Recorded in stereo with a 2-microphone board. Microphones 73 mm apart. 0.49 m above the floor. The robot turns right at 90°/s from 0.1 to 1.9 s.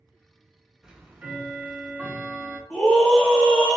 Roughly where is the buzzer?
I don't hear a buzzer.